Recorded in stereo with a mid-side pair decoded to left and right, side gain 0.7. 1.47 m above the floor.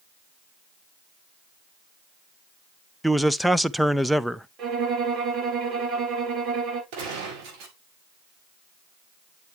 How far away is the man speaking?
About 0.7 m.